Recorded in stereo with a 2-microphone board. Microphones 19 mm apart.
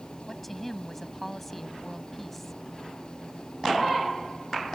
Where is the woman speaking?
10° left (ahead or behind).